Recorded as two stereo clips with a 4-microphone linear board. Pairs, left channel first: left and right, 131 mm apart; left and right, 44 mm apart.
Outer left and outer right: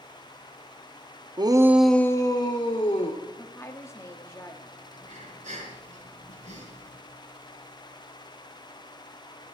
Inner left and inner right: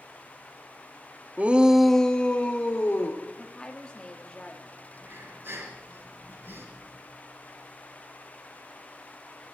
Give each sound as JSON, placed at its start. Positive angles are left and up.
{"t": 1.4, "sound": "a shout", "side_deg": -35, "distance_m": 0.7}
{"t": 3.3, "sound": "a woman speaking", "side_deg": 20, "distance_m": 1.4}
{"t": 4.9, "sound": "breathing", "side_deg": -65, "distance_m": 5.5}